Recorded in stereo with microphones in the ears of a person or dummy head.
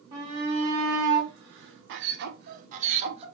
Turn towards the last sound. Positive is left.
turn(degrees=-30)  # may be behind; listen again after turning